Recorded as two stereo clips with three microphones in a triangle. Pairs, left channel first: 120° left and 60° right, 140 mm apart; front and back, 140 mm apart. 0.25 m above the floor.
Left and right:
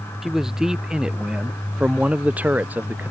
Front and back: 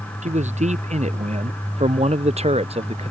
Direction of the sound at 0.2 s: 145° right.